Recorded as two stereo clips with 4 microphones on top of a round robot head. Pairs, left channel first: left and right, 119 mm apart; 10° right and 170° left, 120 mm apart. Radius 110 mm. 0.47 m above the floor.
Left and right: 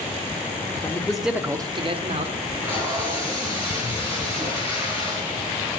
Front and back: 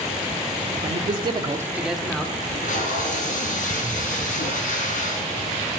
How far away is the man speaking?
About 1.3 m.